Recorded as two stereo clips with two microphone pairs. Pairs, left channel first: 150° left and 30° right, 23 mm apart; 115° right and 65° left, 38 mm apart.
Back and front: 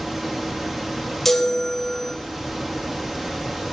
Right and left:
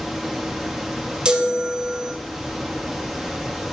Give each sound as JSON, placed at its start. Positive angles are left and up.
{"t": 1.2, "sound": "a chime", "azimuth_deg": 85, "distance_m": 0.7}